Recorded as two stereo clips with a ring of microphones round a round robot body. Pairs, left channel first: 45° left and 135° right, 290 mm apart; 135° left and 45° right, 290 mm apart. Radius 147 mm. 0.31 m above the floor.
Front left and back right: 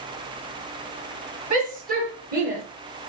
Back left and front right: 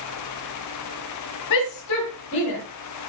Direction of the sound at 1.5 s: 160° left.